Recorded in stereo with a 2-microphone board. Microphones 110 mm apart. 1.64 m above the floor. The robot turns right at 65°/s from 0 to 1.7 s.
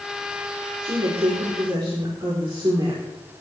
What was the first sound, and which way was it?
A woman speaking, 105° right.